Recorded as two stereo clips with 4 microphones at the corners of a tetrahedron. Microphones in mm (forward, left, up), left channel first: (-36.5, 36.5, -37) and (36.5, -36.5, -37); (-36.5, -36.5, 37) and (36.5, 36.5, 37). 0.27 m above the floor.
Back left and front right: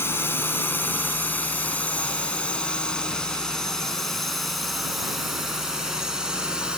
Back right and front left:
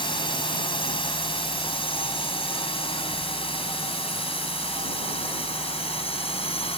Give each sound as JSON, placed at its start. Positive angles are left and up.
{"t": 0.0, "sound": "a drone", "azimuth_deg": -160}